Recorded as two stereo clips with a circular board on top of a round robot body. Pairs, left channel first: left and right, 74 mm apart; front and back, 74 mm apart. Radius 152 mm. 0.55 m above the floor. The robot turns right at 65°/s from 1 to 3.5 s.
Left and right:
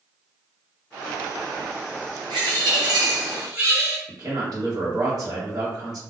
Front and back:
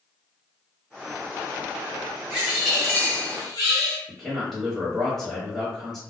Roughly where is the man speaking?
Right.